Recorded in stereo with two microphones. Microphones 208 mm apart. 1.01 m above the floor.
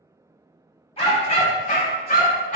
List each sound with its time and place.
1.0 s a dog barking: 30° left (ahead or behind), 1.3 m; by 2.6 s 40° left (ahead or behind), 0.9 m